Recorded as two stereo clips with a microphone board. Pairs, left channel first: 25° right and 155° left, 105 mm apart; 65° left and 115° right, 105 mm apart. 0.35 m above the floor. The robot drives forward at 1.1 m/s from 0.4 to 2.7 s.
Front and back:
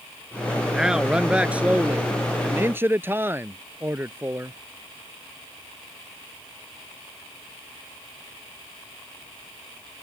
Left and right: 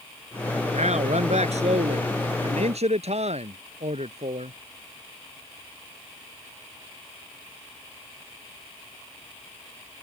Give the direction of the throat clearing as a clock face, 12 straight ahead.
I don't hear throat clearing.